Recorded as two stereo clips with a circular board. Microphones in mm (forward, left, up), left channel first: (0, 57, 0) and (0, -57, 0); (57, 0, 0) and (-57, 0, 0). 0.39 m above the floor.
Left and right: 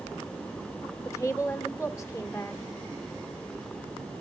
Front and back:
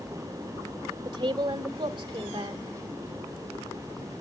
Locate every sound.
1.1 s a woman speaking: 145° left, 1.3 m